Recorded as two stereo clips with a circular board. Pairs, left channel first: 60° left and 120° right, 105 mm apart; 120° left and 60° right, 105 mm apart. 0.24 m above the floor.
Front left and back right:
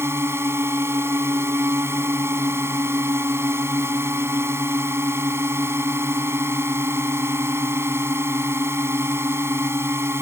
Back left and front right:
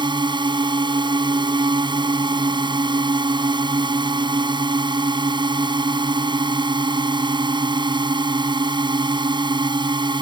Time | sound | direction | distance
0.0 | a drone | 65° right | ?